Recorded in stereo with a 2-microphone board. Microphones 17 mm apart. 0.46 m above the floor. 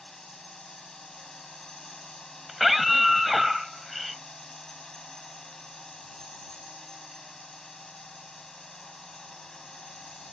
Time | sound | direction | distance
0.0 | a drone | 35° left (ahead or behind) | ?
2.5 | a scream | 10° right (ahead or behind) | ?